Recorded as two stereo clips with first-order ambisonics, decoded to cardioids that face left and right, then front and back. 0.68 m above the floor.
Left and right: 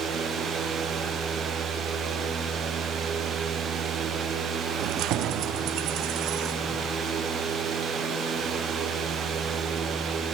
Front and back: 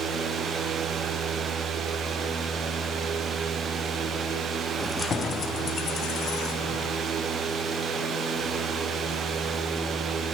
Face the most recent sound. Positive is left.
turn(degrees=-45)